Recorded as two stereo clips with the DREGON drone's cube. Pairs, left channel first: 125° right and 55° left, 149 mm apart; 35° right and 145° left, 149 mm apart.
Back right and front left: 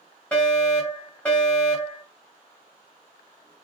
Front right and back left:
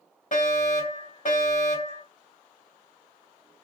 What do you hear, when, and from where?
0.3 s a fire alarm: 40° right, 3.5 m